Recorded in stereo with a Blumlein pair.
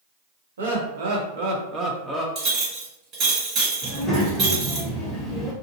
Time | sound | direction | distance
0.6 | laughter | 65° right | 1.1 m
2.4 | a clink | 30° right | 1.7 m
3.8 | a child speaking | 15° left | 0.9 m